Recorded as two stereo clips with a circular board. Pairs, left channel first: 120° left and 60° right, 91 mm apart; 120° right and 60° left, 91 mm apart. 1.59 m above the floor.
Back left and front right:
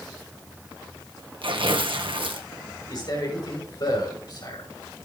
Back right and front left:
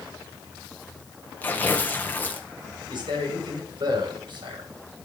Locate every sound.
1.4 s tearing paper: 50° right, 1.5 m
2.9 s a man speaking: 85° left, 6 m